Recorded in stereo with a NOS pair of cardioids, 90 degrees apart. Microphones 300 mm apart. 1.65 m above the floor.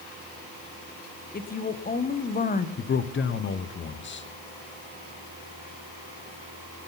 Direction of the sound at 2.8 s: 40° left.